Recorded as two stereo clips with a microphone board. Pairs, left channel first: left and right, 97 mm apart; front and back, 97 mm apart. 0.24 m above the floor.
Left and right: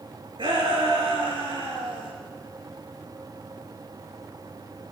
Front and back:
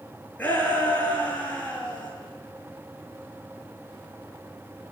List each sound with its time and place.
0.4 s a shout: 75° right, 3.5 m